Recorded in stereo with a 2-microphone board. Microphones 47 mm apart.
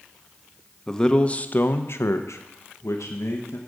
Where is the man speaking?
10° left (ahead or behind), 0.9 m; by 3.6 s 75° left (ahead or behind), 1.4 m.